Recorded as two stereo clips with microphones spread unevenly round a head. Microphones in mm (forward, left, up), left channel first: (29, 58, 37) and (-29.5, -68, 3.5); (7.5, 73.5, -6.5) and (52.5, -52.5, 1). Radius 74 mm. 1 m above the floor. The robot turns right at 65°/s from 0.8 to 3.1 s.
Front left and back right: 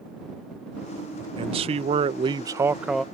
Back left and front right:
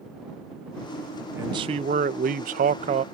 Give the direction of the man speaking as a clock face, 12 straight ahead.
5 o'clock.